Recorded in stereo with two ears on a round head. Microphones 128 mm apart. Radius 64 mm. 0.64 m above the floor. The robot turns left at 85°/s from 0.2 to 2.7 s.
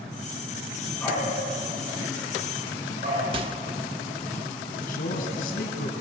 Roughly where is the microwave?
Right.